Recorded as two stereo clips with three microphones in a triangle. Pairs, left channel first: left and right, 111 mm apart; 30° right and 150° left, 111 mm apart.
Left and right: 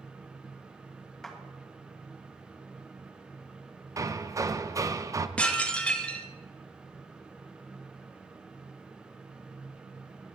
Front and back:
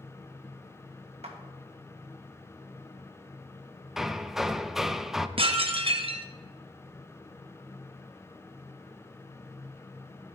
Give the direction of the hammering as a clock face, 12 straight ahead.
4 o'clock.